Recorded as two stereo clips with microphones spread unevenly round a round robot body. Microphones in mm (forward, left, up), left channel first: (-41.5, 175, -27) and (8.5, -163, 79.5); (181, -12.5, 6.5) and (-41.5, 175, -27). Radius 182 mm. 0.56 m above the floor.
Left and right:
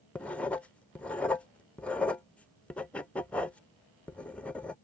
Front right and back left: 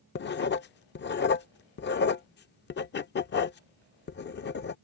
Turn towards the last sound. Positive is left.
turn(degrees=20)